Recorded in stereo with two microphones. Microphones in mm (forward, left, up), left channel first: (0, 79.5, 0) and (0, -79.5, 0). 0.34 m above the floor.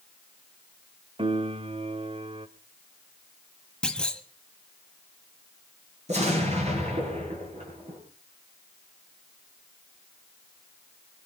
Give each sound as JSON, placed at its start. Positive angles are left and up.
{"t": 1.2, "sound": "a piano", "side_deg": -35, "distance_m": 1.0}
{"t": 3.8, "sound": "a clunk", "side_deg": 5, "distance_m": 1.2}
{"t": 6.1, "sound": "an explosion", "side_deg": -45, "distance_m": 7.0}